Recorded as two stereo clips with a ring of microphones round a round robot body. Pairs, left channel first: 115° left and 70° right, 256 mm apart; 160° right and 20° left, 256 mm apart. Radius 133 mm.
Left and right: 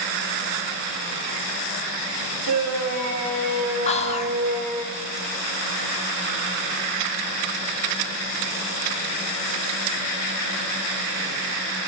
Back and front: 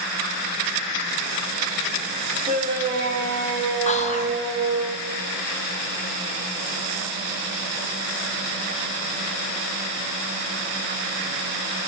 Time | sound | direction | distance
2.5 | a shout | 35° right | 2.5 m
3.9 | whispering | 160° left | 1.0 m